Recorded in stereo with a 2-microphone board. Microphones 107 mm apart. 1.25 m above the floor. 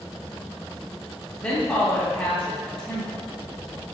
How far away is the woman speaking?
About 1.7 m.